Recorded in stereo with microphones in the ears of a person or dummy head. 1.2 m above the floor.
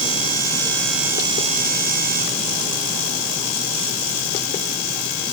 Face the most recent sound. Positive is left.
No sound to turn to.